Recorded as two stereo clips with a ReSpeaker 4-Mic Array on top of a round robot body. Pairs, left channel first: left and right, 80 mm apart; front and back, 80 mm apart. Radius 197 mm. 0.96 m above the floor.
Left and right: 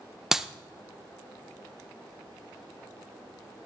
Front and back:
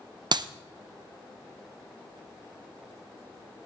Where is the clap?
175° right, 0.7 m.